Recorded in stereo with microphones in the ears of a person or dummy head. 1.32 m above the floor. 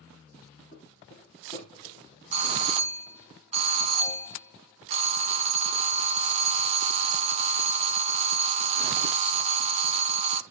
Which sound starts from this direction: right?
A doorbell, at 2.3 s.